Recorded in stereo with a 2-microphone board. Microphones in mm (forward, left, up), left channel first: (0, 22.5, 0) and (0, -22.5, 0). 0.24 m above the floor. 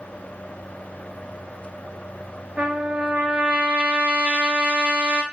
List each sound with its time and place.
2.6 s a trumpet: 30° right (ahead or behind), 0.5 m